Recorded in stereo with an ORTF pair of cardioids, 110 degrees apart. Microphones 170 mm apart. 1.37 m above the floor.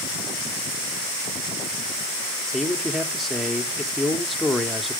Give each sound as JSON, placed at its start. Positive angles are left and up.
{"t": 2.5, "sound": "a man speaking", "azimuth_deg": 0, "distance_m": 0.9}